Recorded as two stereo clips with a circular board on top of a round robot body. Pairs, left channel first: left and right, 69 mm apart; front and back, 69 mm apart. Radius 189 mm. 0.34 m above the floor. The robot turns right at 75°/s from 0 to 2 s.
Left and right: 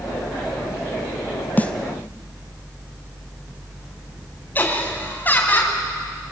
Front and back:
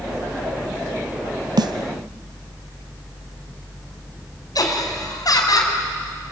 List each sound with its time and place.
1.6 s a snare drum: 155° left, 0.7 m; by 1.7 s 170° left, 0.7 m
4.5 s laughter: 25° left, 4.5 m